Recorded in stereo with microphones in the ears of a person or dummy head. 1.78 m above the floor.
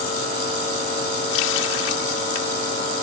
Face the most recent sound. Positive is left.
turn(degrees=80)